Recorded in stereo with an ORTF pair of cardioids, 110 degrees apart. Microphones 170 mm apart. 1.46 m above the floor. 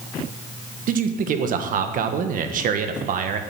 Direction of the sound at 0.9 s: 55° right.